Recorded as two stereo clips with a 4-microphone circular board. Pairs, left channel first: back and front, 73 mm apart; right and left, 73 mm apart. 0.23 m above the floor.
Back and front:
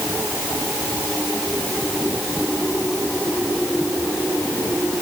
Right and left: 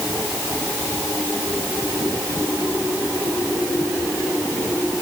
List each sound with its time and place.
Only background noise.